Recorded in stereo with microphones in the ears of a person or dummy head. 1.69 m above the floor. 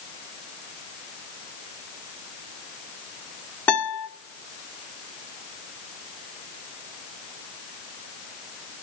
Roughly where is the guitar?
Centre.